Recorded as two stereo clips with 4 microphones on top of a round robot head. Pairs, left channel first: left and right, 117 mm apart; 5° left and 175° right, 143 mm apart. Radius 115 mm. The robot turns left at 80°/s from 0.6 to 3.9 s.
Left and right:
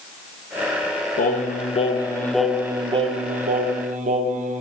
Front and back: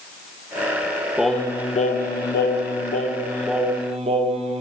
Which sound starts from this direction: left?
Singing, at 1.2 s.